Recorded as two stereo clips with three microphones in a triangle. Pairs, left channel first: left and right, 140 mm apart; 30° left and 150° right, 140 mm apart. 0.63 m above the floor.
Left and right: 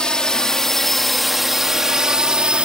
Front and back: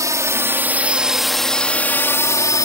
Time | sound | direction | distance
0.0 | a drone | 170° left | ?